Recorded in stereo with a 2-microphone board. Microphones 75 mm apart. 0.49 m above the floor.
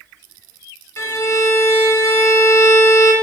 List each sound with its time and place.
1.0 s a violin: 40° left (ahead or behind), 0.8 m